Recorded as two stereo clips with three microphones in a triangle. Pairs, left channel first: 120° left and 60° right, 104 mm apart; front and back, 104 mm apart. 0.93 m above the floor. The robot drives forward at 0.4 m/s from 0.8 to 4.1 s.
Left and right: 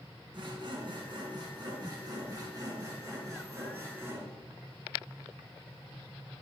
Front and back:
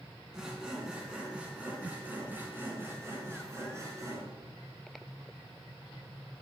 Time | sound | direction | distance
0.3 | sawing | 95° right | 2.5 m